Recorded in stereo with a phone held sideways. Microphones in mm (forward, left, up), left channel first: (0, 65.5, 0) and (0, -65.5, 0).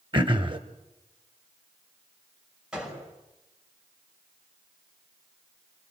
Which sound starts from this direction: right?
Throat clearing, at 0.1 s.